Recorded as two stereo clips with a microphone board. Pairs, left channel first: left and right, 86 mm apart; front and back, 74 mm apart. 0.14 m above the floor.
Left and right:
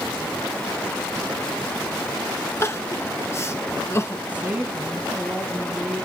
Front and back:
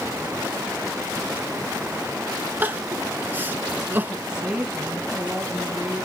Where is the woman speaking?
125° right, 1.6 m.